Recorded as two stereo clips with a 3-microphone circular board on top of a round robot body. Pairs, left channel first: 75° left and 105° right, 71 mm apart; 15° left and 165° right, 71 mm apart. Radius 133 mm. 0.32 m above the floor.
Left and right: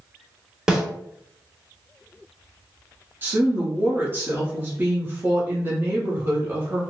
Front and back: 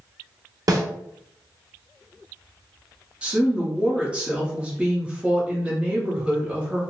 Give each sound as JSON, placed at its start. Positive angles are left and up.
{"t": 0.7, "sound": "a snare drum", "azimuth_deg": 180, "distance_m": 1.1}
{"t": 3.2, "sound": "a woman speaking", "azimuth_deg": -105, "distance_m": 1.2}